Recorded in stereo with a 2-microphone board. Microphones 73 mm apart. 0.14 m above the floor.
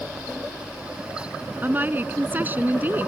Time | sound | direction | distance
1.6 | a woman speaking | 25° right (ahead or behind) | ?